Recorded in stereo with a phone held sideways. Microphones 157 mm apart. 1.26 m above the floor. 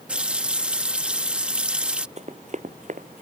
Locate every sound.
0.1 s a running tap: 10° right (ahead or behind)
2.2 s running footsteps: 45° right (ahead or behind); by 3.2 s 55° right (ahead or behind)